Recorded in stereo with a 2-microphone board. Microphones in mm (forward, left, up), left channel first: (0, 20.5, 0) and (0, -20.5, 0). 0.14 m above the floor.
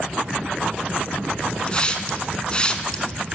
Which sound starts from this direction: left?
A hiss, at 1.7 s.